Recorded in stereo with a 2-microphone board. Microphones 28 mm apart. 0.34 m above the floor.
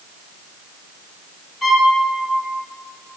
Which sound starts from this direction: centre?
A violin, at 1.6 s.